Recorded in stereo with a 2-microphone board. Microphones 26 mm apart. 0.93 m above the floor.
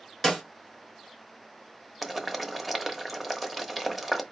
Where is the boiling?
5° right (ahead or behind), 0.8 m.